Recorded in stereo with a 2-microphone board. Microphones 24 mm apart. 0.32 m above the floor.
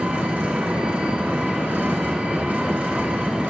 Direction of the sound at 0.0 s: 80° right.